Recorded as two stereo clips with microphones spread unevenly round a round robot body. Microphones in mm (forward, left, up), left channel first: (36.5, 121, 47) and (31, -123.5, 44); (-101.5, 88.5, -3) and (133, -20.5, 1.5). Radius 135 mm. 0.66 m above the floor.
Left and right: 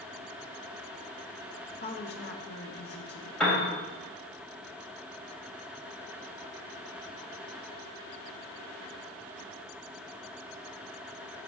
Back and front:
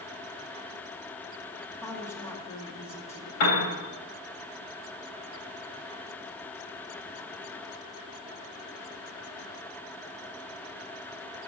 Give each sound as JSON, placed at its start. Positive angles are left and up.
{"t": 1.8, "sound": "a woman speaking", "azimuth_deg": 80, "distance_m": 1.4}
{"t": 3.4, "sound": "a piano", "azimuth_deg": 175, "distance_m": 3.0}